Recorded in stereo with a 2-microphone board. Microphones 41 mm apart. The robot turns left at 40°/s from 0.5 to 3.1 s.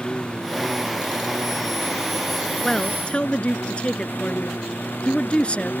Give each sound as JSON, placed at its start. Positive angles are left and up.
{"t": 0.0, "sound": "a lawn mower", "azimuth_deg": 155}
{"t": 2.6, "sound": "a man speaking", "side_deg": 10}